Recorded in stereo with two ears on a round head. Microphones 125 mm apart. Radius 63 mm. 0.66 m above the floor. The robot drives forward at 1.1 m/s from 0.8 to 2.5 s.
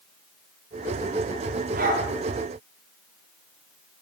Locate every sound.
1.8 s a dog barking: 70° right (ahead or behind), 7 m; by 2.1 s 65° right (ahead or behind), 7 m